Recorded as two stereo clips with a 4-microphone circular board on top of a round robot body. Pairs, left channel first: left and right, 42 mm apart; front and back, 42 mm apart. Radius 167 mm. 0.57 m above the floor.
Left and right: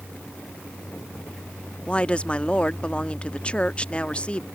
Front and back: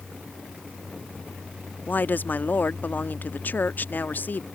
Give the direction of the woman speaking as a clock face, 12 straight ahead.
11 o'clock.